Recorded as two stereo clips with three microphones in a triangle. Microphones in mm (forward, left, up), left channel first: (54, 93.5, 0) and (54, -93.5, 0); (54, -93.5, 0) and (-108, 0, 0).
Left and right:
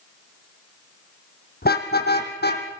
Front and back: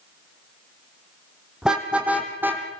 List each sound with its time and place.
1.6 s a car horn: 65° left, 3 m; by 2.8 s 75° left, 3 m